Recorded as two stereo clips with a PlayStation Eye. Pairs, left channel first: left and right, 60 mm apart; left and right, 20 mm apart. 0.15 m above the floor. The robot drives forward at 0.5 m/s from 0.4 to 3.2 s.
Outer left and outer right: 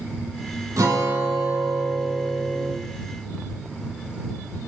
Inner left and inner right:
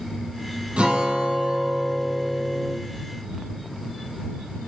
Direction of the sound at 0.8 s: 70° right (ahead or behind).